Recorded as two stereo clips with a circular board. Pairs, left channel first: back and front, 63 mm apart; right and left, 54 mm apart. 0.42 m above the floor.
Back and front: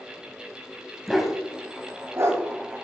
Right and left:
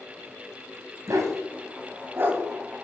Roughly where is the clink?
I don't hear a clink.